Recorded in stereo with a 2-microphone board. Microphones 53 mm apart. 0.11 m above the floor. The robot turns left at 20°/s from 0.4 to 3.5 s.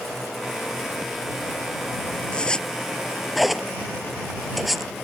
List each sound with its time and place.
2.3 s a zipper: 20° left (ahead or behind); by 4.9 s centre (ahead or behind)